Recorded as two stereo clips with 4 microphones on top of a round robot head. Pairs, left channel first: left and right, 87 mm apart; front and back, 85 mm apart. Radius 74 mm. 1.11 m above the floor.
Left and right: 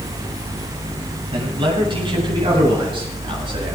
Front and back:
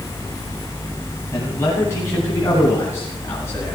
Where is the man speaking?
65° right, 10 m.